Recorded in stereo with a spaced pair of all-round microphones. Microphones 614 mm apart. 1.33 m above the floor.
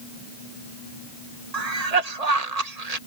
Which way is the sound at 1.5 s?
85° right.